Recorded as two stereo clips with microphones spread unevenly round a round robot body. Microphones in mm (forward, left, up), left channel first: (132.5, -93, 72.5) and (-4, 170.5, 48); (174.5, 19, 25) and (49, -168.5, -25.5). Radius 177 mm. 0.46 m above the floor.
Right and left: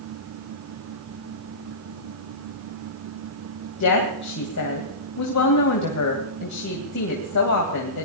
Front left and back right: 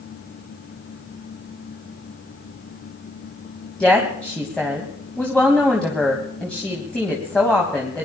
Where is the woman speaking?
35° right, 3 m.